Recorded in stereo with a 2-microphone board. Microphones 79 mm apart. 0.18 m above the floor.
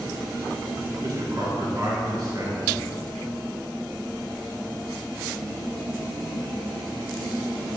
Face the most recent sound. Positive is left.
turn(degrees=-55)  # may be behind; listen again after turning